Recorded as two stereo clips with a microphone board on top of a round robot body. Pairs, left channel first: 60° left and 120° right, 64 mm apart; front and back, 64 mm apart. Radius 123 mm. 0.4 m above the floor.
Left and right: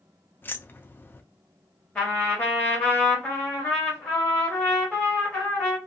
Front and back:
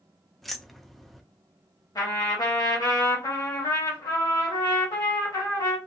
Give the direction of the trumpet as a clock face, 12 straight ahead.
12 o'clock.